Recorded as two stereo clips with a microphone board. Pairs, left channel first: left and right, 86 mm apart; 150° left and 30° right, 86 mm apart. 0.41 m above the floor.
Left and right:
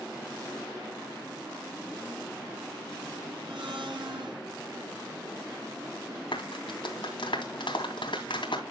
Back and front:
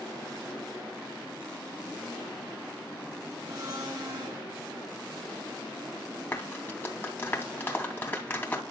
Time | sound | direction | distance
3.5 | a blender | 80° right | 5.5 m
6.3 | a clap | 85° left | 2.5 m